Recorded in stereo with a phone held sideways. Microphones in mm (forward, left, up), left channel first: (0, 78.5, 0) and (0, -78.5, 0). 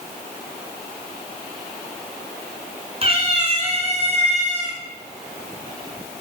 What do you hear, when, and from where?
3.0 s a cat meowing: 40° right (ahead or behind), 2.5 m; by 4.8 s 50° right (ahead or behind), 3.5 m